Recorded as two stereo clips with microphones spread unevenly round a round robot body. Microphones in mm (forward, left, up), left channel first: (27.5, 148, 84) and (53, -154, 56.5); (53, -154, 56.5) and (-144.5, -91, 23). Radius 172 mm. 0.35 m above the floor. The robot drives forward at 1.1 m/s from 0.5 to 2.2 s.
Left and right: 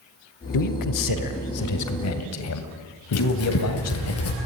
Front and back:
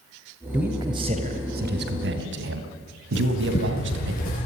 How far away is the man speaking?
About 1.8 m.